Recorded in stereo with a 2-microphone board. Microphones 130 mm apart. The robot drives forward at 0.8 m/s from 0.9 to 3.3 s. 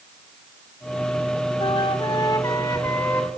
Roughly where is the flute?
Left.